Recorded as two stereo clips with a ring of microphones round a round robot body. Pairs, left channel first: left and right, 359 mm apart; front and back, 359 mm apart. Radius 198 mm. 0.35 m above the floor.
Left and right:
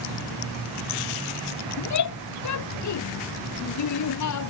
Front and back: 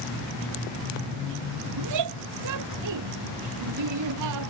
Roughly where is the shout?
Behind left.